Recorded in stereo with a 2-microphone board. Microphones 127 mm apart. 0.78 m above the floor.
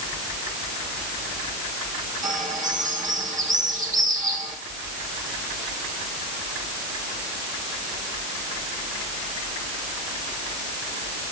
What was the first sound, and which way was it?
A bird, 80° right.